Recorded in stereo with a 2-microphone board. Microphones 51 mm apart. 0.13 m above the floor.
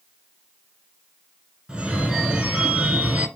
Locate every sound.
1.7 s a phone ringing: 15° right (ahead or behind), 0.8 m